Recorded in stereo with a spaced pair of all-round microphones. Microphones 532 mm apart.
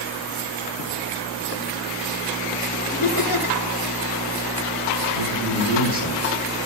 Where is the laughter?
35° left (ahead or behind), 2.5 m.